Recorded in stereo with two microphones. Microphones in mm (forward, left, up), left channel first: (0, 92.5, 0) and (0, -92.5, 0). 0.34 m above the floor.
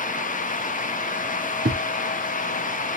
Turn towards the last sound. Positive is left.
turn(degrees=-60)  # may be behind; listen again after turning